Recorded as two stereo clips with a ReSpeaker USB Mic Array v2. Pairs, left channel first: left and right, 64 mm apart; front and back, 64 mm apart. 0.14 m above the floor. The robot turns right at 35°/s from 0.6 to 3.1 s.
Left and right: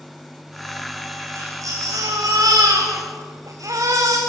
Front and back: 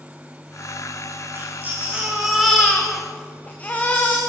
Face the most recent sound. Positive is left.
turn(degrees=-65)